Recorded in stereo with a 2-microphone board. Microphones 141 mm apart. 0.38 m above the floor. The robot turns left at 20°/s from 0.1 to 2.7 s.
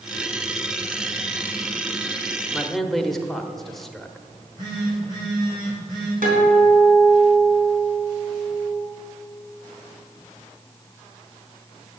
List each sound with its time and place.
2.5 s a man speaking: centre (ahead or behind), 0.9 m
4.3 s a phone buzzing: 30° right (ahead or behind), 4 m
6.2 s a guitar: 75° right (ahead or behind), 3.5 m